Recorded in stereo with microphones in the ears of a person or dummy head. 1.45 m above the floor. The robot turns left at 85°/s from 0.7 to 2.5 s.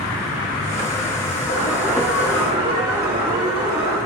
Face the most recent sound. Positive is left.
turn(degrees=-35)